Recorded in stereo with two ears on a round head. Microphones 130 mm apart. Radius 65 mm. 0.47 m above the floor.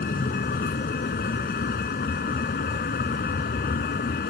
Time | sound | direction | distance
0.0 | a vehicle | 70° left (ahead or behind) | ?